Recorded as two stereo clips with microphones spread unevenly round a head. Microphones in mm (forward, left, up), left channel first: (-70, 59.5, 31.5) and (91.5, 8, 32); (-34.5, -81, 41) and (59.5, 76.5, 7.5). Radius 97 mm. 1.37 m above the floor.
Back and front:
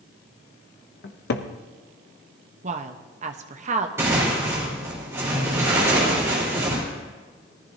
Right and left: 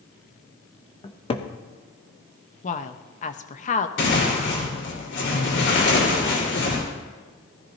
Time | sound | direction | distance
1.0 | a cupboard door | 175° left | 0.9 m
2.6 | a woman speaking | 65° right | 1.0 m
4.0 | tearing paper | 95° right | 4.5 m